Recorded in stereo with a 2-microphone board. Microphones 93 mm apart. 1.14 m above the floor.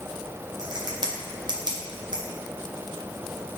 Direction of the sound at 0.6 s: 50° right (ahead or behind).